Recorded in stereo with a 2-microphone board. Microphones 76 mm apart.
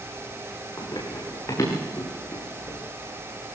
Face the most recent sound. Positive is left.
turn(degrees=30)  # may be behind; listen again after turning